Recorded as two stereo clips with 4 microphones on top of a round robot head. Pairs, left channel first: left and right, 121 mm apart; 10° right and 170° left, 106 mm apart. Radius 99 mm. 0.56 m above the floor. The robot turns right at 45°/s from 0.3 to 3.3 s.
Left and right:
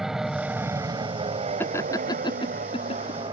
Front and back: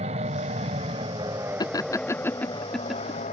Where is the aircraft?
175° right; by 3.3 s 35° right.